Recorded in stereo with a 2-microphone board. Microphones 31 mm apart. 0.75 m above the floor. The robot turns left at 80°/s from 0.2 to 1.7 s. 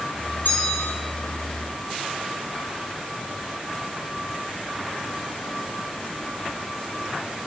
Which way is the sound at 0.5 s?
105° left.